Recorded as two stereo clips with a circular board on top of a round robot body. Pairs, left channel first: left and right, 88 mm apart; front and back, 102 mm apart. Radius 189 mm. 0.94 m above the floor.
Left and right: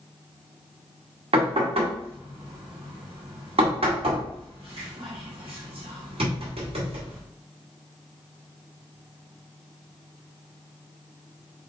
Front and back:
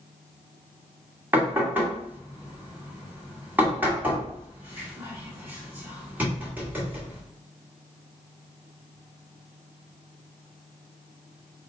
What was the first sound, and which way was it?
Knocking, 105° right.